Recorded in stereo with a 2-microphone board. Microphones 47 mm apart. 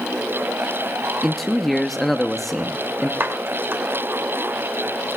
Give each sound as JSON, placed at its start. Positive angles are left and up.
{"t": 1.2, "sound": "a man speaking", "side_deg": 0, "distance_m": 1.0}
{"t": 3.2, "sound": "a clap", "side_deg": -55, "distance_m": 3.0}